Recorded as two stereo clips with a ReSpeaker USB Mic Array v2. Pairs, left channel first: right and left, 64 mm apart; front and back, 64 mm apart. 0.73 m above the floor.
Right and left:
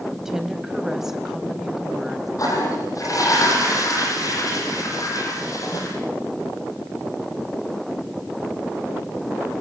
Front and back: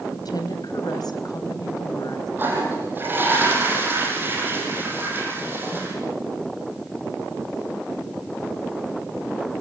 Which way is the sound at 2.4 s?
120° right.